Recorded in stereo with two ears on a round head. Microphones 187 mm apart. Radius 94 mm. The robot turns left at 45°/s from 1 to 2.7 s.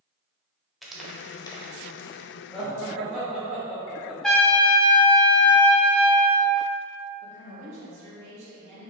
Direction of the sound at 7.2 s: 60° right (ahead or behind).